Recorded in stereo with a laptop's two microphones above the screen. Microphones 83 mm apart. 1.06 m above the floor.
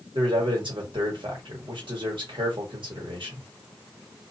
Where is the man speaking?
75° right (ahead or behind), 1.5 m.